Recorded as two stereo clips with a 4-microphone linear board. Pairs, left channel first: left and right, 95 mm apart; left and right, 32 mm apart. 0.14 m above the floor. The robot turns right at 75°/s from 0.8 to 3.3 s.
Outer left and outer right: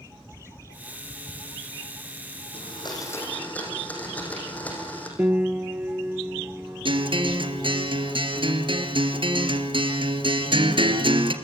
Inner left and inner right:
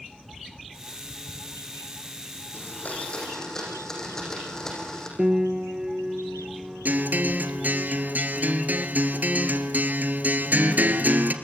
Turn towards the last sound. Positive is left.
turn(degrees=-60)  # may be behind; listen again after turning